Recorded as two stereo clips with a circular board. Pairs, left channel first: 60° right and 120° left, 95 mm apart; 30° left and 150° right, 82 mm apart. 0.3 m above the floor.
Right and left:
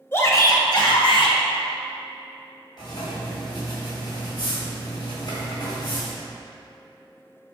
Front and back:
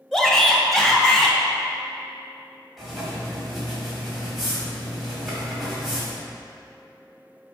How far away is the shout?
About 0.9 m.